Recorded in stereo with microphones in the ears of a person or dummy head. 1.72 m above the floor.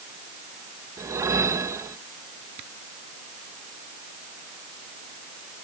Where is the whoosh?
15° right (ahead or behind).